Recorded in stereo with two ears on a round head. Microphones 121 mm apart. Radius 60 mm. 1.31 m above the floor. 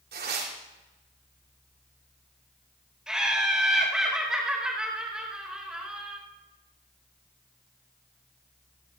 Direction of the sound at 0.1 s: 85° right.